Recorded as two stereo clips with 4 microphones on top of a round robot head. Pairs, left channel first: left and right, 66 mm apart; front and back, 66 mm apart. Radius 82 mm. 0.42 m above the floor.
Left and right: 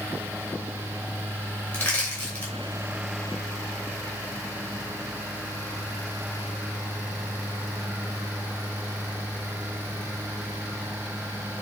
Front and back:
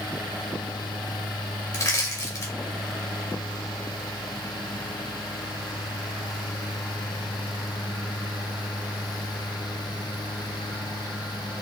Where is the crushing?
20° left, 2.5 m.